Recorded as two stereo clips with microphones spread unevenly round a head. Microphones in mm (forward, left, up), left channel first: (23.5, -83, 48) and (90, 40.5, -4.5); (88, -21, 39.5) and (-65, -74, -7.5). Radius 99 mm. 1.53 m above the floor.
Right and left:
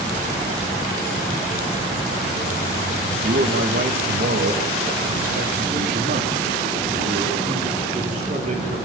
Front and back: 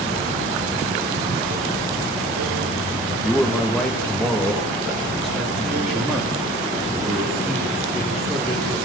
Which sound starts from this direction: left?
A man speaking, at 3.2 s.